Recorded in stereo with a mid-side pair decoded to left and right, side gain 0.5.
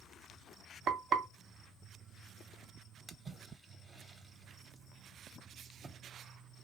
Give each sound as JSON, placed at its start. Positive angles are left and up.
{"t": 0.9, "sound": "frying", "azimuth_deg": -60, "distance_m": 0.8}
{"t": 3.1, "sound": "a splash", "azimuth_deg": -30, "distance_m": 0.7}